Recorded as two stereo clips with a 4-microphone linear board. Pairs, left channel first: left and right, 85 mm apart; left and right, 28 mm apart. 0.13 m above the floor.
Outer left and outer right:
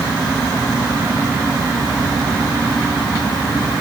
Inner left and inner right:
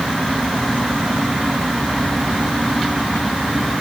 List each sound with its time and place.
Only background noise.